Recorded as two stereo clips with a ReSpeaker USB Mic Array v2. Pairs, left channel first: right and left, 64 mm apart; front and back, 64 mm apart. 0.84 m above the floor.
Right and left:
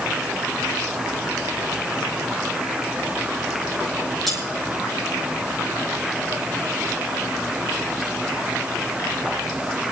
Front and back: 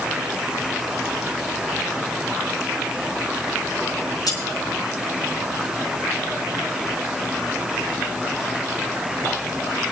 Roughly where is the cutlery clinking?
Ahead.